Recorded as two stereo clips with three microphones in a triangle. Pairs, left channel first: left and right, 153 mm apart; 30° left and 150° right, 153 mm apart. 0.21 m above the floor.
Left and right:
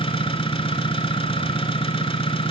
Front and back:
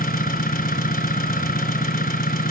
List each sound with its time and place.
0.0 s an engine running: 40° left, 1.6 m